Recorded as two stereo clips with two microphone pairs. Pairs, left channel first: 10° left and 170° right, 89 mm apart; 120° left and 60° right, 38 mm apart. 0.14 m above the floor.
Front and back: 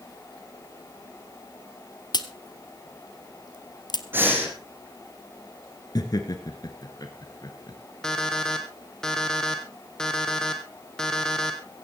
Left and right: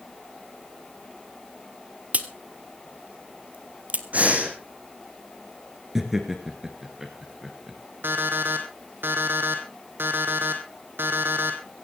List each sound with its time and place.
2.1 s a crack: 15° right, 1.1 m
4.1 s breathing: 105° right, 3 m
6.0 s laughter: 15° left, 1.7 m
8.0 s an alarm clock: 75° right, 2.5 m